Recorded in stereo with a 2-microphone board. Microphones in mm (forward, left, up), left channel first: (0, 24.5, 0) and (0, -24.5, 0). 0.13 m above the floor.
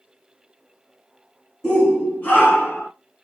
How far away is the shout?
About 1.7 m.